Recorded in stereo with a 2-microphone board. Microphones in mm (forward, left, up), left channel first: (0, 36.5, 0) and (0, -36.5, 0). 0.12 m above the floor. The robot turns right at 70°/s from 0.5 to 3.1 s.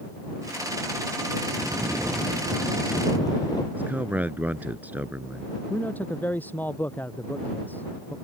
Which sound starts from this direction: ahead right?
Snoring, at 1.5 s.